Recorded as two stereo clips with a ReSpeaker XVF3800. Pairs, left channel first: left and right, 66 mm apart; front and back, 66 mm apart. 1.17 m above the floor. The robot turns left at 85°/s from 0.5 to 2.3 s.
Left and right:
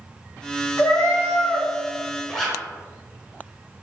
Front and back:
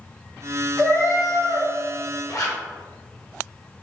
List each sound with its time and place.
0.8 s a cat meowing: 120° left, 1.0 m; by 1.7 s 45° left, 1.0 m
2.3 s a zipper: 10° left, 0.8 m